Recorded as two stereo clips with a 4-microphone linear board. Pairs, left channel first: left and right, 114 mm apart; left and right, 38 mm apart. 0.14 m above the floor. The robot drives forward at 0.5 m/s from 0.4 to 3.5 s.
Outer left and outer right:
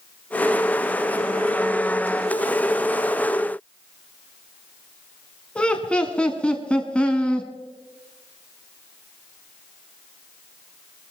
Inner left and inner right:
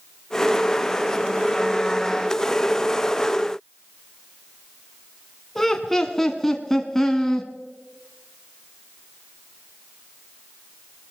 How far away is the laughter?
About 1.1 m.